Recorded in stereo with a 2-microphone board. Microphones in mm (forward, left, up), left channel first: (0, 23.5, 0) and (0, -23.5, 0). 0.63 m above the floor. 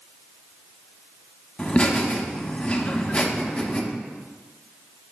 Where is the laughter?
25° left (ahead or behind), 1.1 m.